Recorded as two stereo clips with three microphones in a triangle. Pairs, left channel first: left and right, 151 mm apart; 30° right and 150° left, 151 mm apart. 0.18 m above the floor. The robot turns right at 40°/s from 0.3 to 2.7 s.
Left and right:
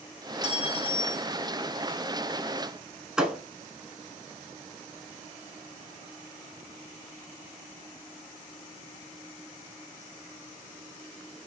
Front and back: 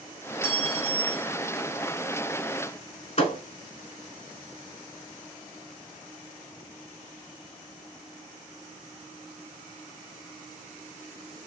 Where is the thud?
5° right, 0.9 m.